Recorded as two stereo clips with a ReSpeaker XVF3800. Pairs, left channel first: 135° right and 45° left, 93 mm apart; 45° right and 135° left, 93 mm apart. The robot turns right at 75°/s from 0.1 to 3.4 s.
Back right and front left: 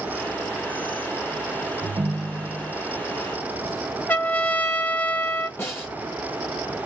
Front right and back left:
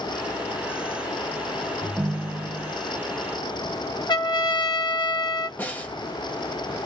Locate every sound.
1.8 s a ringtone: 35° left, 1.2 m; by 2.7 s 105° left, 1.2 m
4.1 s a trumpet: 70° right, 0.7 m
5.6 s a snare drum: 95° right, 1.1 m